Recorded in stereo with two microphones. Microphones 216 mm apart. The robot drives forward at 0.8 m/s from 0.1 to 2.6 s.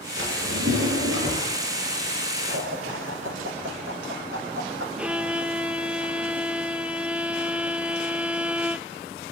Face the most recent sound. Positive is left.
turn(degrees=-5)  # may be behind; listen again after turning